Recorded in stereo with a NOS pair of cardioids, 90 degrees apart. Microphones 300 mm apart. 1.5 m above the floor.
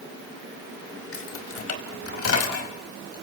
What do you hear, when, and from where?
1.1 s keys jangling: 50° left, 5 m; by 3.2 s 55° left, 6.5 m